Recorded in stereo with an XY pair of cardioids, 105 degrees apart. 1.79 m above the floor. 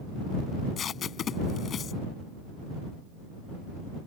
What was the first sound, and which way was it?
Tape being pulled, 50° left.